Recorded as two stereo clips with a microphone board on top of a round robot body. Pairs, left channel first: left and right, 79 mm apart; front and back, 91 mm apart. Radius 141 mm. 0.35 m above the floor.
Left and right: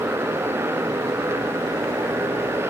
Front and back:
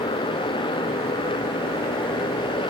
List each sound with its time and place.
0.0 s a motorcycle: 30° right